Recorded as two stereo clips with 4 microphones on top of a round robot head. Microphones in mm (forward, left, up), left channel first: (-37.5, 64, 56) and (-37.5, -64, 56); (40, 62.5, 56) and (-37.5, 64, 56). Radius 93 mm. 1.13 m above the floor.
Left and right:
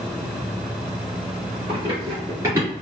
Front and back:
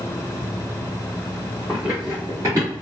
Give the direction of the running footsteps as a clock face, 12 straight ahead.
3 o'clock.